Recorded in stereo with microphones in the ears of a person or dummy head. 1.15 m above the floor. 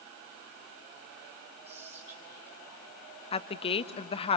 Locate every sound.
1.6 s whispering: 30° right (ahead or behind), 2 m
3.3 s a woman speaking: 30° left (ahead or behind), 1.2 m